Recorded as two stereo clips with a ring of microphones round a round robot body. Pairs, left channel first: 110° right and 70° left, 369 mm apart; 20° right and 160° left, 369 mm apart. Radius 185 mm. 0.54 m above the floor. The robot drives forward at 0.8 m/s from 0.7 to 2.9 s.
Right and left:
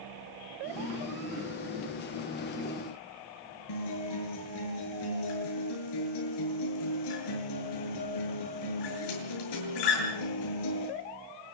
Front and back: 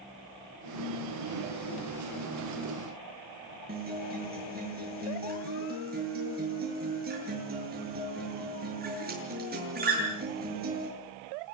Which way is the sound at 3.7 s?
135° right.